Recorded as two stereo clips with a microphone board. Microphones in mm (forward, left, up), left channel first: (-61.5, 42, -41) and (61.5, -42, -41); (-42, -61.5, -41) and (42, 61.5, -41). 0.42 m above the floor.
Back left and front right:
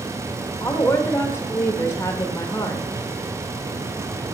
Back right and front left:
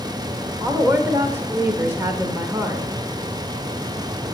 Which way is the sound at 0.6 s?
105° left.